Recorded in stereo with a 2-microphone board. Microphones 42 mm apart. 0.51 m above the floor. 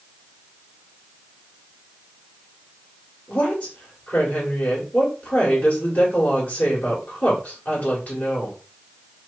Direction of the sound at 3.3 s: 40° left (ahead or behind).